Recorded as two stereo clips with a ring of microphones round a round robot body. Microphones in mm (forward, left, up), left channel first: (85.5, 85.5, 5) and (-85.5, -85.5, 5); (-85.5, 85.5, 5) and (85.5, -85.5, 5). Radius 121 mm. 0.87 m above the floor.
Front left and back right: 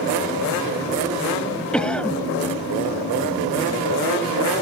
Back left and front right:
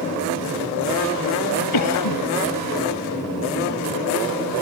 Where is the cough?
130° left.